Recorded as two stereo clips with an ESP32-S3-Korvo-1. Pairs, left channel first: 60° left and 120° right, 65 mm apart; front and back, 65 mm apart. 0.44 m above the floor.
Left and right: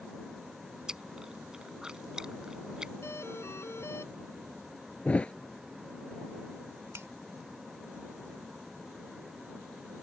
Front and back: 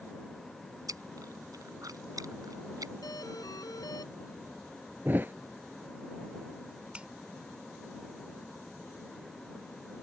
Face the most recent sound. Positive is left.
turn(degrees=-115)